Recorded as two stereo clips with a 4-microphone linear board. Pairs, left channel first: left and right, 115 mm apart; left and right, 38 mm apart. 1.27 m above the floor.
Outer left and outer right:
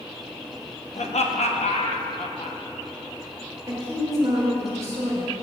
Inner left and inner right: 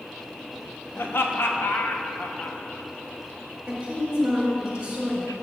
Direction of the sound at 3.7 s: 30° right (ahead or behind).